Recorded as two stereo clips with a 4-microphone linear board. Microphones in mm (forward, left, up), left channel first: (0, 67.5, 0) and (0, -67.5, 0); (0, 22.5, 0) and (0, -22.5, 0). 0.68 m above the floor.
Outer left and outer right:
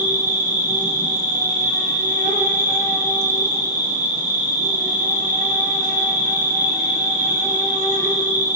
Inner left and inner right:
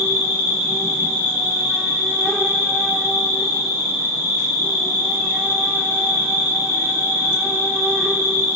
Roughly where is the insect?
Right.